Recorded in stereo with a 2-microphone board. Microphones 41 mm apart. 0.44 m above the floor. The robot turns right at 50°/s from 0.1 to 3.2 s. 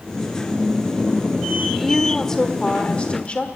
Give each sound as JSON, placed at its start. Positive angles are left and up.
{"t": 1.7, "sound": "a woman speaking", "azimuth_deg": -10, "distance_m": 1.5}